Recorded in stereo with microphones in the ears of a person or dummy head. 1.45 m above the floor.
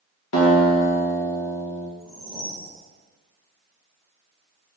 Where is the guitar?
70° left (ahead or behind), 2 m.